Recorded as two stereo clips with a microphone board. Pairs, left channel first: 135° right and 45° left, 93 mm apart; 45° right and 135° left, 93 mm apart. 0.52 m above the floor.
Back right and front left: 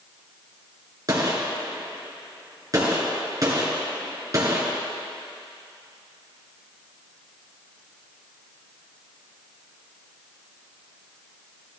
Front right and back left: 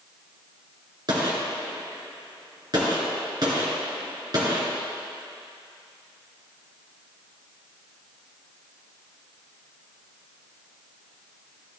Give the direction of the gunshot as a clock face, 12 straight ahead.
9 o'clock.